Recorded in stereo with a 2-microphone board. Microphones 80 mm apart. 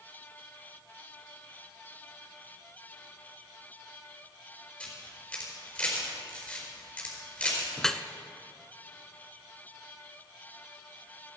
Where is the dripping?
5° left (ahead or behind), 0.7 m.